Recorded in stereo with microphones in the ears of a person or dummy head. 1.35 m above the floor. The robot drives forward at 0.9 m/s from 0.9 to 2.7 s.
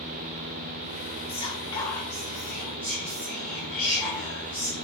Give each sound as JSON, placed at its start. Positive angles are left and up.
{"t": 1.3, "sound": "whispering", "side_deg": 30, "distance_m": 0.7}